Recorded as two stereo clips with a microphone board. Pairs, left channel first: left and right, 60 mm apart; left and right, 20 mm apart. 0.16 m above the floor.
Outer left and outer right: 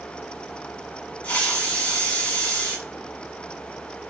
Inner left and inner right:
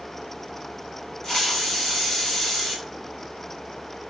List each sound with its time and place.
1.2 s a hiss: 25° left (ahead or behind), 1.0 m